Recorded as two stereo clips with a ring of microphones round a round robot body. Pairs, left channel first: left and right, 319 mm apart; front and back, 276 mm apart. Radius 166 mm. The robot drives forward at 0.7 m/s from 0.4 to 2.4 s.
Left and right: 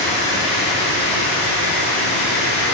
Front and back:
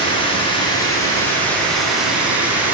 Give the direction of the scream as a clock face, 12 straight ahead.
I don't hear a scream.